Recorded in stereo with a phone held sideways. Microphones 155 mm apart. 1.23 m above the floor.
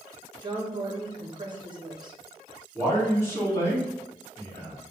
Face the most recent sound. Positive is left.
turn(degrees=15)  # may be behind; listen again after turning